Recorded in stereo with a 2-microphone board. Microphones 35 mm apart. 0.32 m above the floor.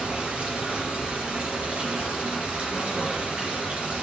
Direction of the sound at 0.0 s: 40° right (ahead or behind).